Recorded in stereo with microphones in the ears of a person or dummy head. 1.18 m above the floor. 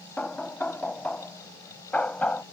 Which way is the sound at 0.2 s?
5° left (ahead or behind).